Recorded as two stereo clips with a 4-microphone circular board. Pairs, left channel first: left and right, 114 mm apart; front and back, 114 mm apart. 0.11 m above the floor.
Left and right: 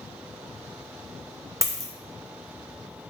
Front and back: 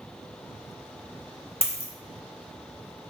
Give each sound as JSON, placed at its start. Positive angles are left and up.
{"t": 1.6, "sound": "a dropped coin", "azimuth_deg": -30, "distance_m": 0.7}